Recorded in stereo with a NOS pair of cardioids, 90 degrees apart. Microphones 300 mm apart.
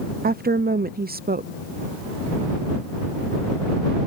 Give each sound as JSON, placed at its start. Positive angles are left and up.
{"t": 0.2, "sound": "a woman speaking", "azimuth_deg": -30}